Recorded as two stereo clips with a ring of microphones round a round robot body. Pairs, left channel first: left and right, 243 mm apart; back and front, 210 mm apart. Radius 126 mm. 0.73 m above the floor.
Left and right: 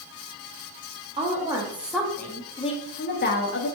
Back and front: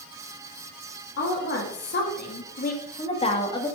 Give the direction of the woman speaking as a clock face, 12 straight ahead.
5 o'clock.